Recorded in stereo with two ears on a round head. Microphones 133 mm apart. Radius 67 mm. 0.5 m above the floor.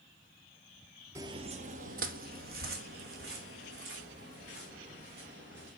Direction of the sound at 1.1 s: 20° right (ahead or behind).